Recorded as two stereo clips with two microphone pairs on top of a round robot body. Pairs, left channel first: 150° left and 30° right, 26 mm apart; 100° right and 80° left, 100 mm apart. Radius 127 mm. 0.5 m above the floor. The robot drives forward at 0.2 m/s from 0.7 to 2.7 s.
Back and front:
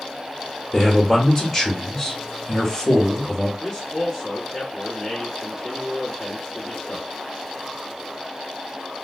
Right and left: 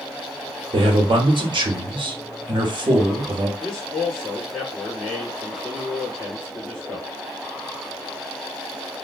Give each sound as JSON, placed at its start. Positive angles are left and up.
{"t": 0.7, "sound": "a man speaking", "azimuth_deg": 80, "distance_m": 1.0}
{"t": 3.6, "sound": "a man speaking", "azimuth_deg": -170, "distance_m": 1.6}